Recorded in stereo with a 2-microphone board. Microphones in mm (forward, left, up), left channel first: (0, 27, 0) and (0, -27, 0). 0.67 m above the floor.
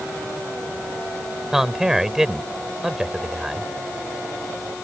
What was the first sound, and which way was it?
A man speaking, 5° right (ahead or behind).